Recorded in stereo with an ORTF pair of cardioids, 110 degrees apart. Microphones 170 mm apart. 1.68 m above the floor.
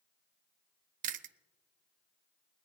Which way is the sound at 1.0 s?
55° right.